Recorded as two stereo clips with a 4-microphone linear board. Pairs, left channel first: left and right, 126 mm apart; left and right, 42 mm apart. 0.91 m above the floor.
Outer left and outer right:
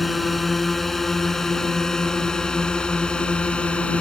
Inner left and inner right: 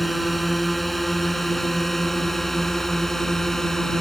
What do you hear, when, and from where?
0.0 s a drone: centre (ahead or behind); by 4.0 s 10° left (ahead or behind)